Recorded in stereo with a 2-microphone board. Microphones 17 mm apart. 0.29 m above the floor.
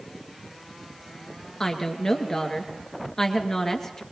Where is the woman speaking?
25° left (ahead or behind), 3.5 m.